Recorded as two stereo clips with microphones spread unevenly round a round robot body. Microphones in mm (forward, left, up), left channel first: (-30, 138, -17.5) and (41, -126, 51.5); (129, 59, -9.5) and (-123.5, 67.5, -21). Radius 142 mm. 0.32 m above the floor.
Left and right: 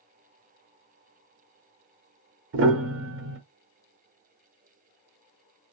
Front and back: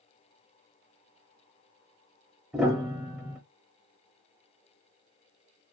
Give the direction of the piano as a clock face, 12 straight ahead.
3 o'clock.